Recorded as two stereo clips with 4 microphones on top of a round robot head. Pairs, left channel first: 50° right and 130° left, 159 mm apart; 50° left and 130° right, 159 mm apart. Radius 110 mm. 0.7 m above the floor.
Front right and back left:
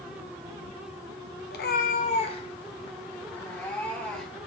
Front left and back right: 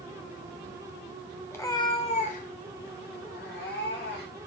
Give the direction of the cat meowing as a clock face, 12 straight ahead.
1 o'clock.